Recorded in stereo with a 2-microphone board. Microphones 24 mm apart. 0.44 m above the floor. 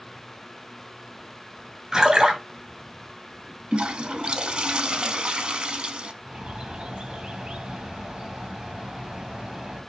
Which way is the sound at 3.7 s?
45° right (ahead or behind).